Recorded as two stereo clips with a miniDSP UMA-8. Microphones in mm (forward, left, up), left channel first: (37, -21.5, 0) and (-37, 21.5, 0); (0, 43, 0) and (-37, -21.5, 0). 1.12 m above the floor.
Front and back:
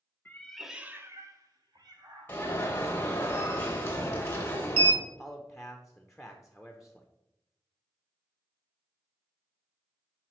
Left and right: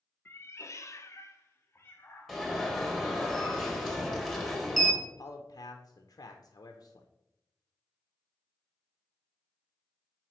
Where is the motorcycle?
I don't hear a motorcycle.